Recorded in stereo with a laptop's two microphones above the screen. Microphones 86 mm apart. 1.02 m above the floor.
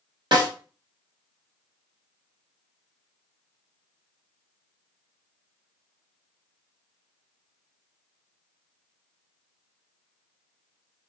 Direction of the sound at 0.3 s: 65° right (ahead or behind).